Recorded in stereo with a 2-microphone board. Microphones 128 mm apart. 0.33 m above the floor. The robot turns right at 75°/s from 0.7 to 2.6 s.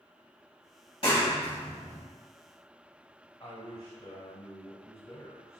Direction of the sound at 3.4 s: 30° left (ahead or behind).